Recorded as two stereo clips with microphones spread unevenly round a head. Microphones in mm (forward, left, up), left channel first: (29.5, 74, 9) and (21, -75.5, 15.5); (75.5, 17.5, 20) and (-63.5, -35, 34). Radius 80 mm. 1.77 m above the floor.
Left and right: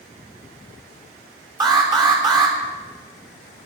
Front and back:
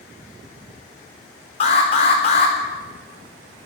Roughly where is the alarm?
Ahead right.